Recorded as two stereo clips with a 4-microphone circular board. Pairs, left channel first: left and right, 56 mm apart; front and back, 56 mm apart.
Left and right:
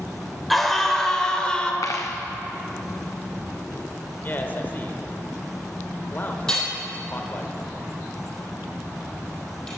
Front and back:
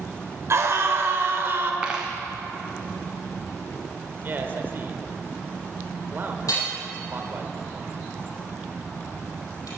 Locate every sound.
0.5 s a scream: 175° left, 1.9 m; by 1.7 s 155° left, 1.6 m
1.8 s a dropped coin: 110° left, 1.4 m
4.2 s a man speaking: 135° left, 1.1 m
6.5 s hammering: 10° left, 4 m